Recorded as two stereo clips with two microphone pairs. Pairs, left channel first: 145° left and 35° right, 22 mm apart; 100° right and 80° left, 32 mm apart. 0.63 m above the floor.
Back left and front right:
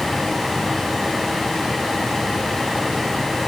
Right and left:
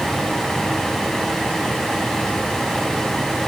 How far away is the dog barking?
I don't hear a dog barking.